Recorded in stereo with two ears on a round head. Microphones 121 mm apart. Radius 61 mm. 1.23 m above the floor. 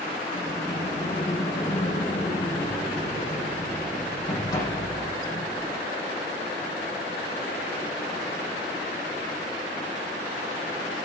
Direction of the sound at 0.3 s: 25° left (ahead or behind).